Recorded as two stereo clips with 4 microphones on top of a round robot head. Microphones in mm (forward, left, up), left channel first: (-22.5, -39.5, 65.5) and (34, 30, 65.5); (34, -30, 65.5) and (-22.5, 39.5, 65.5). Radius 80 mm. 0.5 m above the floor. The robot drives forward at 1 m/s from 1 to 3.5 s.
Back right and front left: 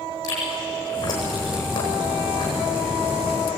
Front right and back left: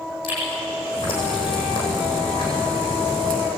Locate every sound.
0.2 s chewing: 80° right, 10 m; by 3.4 s 95° right, 10 m